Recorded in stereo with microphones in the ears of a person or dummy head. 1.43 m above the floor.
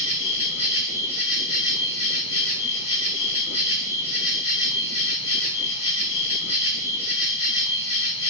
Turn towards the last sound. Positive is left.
turn(degrees=35)  # may be behind; listen again after turning